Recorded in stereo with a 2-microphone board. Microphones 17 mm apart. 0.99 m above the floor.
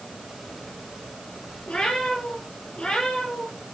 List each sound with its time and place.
1.7 s a cat meowing: 70° left (ahead or behind), 7 m; by 3.6 s 65° left (ahead or behind), 9.5 m